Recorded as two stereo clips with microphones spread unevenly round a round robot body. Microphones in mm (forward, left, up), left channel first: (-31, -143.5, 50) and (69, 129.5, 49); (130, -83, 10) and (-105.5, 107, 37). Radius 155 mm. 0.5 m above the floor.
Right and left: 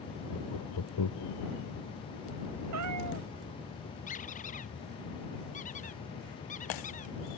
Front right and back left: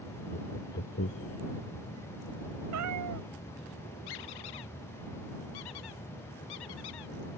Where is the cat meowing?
105° left.